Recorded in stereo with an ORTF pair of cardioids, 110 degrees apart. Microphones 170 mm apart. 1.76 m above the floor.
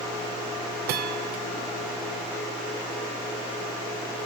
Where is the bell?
70° right, 0.9 m.